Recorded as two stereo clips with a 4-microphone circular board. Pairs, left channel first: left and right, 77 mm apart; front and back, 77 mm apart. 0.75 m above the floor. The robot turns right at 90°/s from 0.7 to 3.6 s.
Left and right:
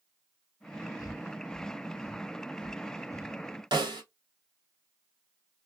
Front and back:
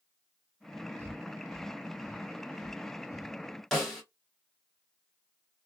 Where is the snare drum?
85° right, 1.7 m.